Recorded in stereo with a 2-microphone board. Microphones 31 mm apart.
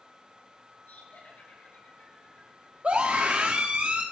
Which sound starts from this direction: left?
Laughter, at 0.9 s.